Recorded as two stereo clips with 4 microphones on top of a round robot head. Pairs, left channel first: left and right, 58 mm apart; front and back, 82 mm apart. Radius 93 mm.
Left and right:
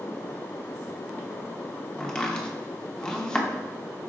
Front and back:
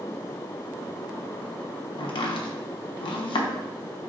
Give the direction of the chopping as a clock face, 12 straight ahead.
12 o'clock.